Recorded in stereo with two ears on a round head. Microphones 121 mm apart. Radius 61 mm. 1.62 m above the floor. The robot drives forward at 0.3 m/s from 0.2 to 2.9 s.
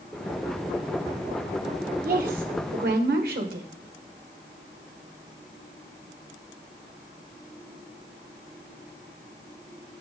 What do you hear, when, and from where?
2.0 s a woman speaking: 65° right (ahead or behind), 1.5 m; by 3.7 s 75° right (ahead or behind), 1.5 m